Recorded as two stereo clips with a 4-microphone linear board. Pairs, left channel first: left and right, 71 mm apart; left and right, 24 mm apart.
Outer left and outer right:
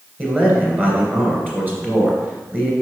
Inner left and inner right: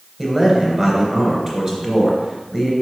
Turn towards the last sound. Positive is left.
turn(degrees=-25)  # may be behind; listen again after turning